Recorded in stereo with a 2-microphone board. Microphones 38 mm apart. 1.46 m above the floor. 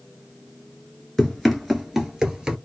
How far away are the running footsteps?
About 1.5 m.